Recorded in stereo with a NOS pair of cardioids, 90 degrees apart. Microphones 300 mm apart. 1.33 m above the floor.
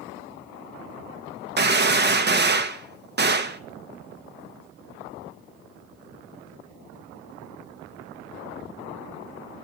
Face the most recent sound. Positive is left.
turn(degrees=-35)